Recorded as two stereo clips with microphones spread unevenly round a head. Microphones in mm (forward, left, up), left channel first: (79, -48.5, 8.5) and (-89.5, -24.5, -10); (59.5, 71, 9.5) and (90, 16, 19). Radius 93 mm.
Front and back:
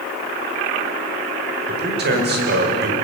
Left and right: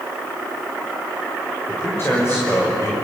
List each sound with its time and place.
1.7 s a man speaking: 165° right, 5.5 m